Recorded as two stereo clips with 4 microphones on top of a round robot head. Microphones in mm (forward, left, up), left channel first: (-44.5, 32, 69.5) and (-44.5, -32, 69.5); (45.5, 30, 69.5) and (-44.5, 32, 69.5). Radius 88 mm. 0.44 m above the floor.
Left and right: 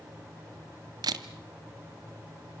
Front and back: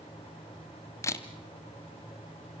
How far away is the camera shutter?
About 1.2 m.